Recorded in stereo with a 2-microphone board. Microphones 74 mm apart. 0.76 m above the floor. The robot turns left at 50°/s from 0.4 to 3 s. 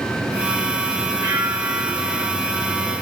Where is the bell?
70° right, 1.4 m; by 2.3 s 125° right, 1.4 m.